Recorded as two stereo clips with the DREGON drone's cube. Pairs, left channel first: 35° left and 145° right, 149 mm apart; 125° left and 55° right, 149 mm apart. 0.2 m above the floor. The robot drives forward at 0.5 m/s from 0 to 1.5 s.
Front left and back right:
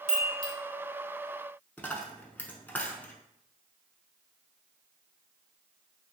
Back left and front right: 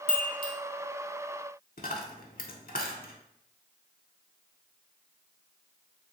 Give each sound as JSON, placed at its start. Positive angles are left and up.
{"t": 0.1, "sound": "a chime", "azimuth_deg": -175, "distance_m": 0.8}
{"t": 1.8, "sound": "a dropped coin", "azimuth_deg": 115, "distance_m": 0.6}